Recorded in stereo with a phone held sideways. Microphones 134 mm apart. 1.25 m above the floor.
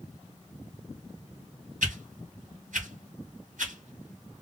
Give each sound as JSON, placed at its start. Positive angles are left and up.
{"t": 1.8, "sound": "a whoosh", "side_deg": -80, "distance_m": 1.9}